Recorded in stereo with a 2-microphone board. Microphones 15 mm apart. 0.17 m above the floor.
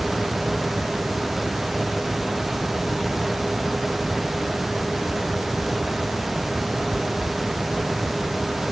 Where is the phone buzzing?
No phone buzzing in this recording.